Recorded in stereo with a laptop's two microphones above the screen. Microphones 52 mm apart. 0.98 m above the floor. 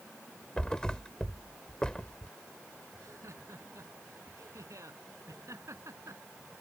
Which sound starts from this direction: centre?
A thud, at 0.6 s.